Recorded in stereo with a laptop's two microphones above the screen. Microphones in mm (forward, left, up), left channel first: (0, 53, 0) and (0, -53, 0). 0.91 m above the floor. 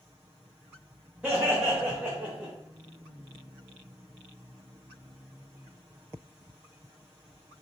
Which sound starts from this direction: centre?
Laughter, at 1.2 s.